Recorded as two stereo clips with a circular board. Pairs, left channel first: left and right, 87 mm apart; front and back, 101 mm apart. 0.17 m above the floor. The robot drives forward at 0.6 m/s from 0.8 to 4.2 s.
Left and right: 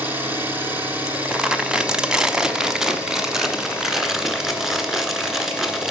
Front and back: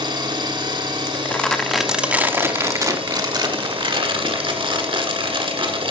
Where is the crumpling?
15° right, 1.0 m; by 5.9 s 175° right, 1.8 m.